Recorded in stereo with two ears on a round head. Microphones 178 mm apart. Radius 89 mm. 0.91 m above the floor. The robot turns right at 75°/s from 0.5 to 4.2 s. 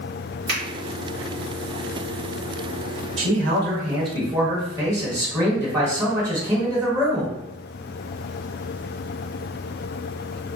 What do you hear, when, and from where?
0.5 s a finger snap: 50° right (ahead or behind), 1.4 m; by 0.6 s 40° right (ahead or behind), 1.4 m
3.2 s a man speaking: 95° right, 1.1 m; by 7.3 s 15° right, 1.1 m